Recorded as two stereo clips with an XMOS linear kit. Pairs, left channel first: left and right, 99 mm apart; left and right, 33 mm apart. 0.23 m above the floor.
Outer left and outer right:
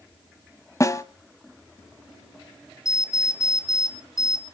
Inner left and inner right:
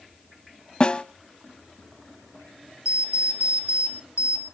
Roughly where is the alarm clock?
Right.